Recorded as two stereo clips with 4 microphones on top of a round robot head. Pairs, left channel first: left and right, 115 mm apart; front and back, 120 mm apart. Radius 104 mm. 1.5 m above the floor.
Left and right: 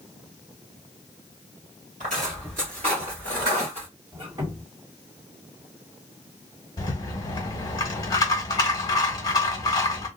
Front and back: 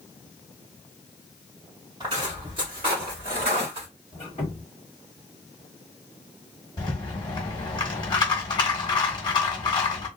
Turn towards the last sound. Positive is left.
turn(degrees=45)